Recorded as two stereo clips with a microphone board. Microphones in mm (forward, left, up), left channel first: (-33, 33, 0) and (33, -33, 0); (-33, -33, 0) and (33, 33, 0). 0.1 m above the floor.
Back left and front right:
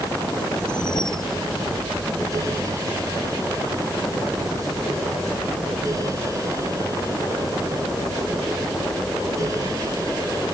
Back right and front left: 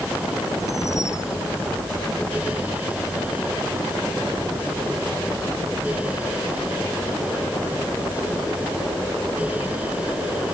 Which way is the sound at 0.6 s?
170° left.